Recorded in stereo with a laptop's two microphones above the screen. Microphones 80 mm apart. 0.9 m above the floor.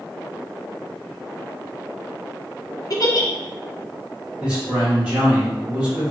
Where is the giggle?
50° left (ahead or behind), 0.5 m.